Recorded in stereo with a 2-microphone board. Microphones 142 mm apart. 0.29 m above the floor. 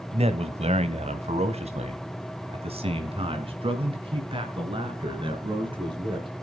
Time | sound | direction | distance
0.1 | a man speaking | 45° right (ahead or behind) | 1.2 m